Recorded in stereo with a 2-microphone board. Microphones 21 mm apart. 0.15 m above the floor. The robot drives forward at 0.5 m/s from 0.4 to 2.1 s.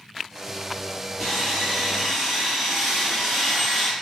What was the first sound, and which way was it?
Sawing, 5° right (ahead or behind).